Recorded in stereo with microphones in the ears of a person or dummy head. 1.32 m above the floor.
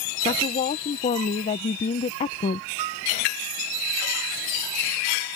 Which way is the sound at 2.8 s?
30° right (ahead or behind).